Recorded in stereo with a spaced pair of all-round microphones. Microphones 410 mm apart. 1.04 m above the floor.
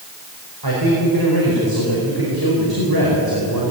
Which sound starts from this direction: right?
A man speaking, at 0.6 s.